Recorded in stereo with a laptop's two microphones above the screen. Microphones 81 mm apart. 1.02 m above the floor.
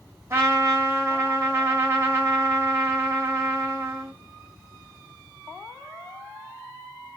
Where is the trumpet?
35° right (ahead or behind), 7 m.